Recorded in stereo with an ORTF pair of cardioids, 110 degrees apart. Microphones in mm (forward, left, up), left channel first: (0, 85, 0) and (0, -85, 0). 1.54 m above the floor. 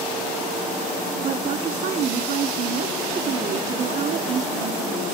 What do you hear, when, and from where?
1.2 s a woman speaking: 50° right, 1.0 m